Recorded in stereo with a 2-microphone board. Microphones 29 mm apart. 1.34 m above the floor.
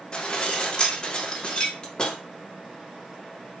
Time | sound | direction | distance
0.1 | dishes clattering | 30° left (ahead or behind) | 2.5 m